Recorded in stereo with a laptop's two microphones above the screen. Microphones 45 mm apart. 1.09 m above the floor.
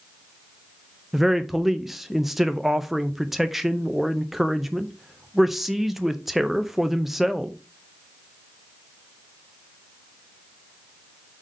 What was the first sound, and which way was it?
A man speaking, 5° right (ahead or behind).